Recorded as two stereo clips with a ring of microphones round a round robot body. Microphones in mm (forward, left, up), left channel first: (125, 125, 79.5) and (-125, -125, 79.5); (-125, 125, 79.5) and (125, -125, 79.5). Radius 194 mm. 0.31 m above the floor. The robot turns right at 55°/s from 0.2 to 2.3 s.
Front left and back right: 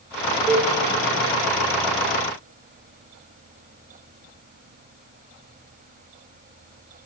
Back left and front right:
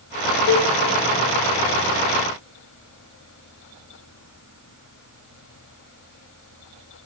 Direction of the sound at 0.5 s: 155° left.